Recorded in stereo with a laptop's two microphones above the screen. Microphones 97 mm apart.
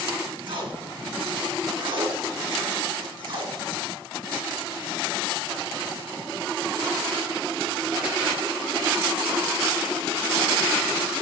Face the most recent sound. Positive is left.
turn(degrees=-60)  # may be behind; listen again after turning